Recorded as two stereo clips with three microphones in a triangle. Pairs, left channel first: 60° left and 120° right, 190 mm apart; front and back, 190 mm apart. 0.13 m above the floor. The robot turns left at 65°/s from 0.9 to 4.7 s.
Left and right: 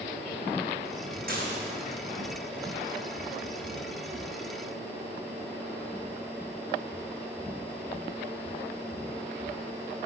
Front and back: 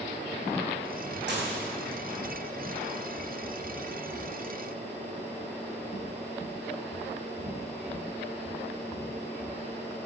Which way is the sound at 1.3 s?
155° right.